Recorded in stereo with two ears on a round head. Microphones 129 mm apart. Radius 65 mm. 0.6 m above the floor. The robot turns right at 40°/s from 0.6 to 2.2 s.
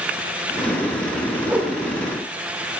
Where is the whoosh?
15° right (ahead or behind), 0.9 m; by 1.7 s 5° right (ahead or behind), 0.9 m.